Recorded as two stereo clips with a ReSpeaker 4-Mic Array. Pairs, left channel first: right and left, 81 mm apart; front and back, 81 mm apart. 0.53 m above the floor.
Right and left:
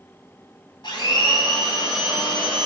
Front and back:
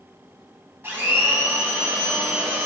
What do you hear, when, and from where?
0.8 s a blender: 115° right, 2 m